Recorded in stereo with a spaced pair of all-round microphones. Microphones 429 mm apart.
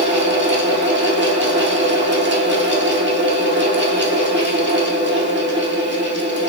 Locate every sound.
0.0 s a fan: 25° right (ahead or behind), 2 m